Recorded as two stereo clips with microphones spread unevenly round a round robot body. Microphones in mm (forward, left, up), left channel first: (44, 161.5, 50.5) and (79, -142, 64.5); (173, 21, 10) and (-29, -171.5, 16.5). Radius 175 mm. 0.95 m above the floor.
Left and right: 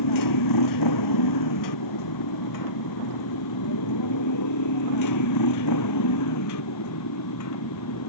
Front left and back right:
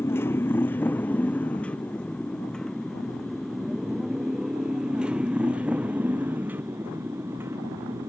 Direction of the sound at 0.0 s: 125° left.